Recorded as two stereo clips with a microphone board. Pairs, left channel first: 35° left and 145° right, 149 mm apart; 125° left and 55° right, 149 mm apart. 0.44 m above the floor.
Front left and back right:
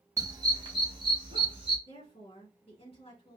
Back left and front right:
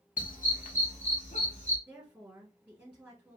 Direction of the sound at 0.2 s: 145° left.